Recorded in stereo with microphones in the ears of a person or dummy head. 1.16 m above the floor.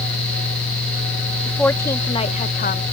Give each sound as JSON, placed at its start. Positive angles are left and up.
{"t": 1.5, "sound": "a woman speaking", "side_deg": 5}